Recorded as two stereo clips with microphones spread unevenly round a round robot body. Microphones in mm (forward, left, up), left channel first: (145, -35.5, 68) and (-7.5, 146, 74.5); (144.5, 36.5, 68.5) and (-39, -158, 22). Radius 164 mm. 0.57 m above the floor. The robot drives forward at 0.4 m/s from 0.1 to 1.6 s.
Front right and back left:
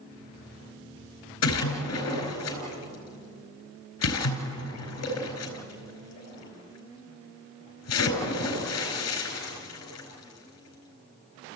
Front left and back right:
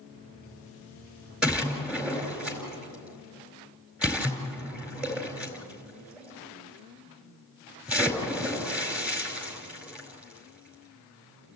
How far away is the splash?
About 4.5 m.